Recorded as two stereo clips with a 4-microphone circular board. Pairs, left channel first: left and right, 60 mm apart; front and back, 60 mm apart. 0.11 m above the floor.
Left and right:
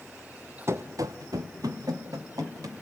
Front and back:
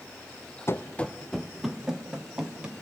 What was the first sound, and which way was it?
Running footsteps, 45° right.